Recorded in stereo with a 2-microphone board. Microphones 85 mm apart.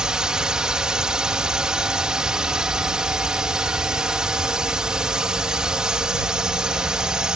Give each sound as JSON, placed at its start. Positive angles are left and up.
{"t": 0.0, "sound": "a drone", "side_deg": -10}